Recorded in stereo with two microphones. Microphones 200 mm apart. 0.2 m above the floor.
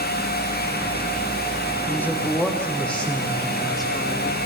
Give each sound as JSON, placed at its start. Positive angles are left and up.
{"t": 1.9, "sound": "a man speaking", "side_deg": 10, "distance_m": 9.5}